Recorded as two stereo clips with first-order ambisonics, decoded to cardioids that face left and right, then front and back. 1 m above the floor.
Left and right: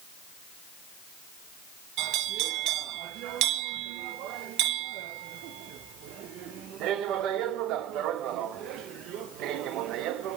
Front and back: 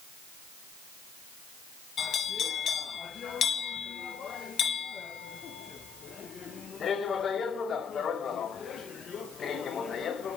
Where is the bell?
60° right, 0.6 m.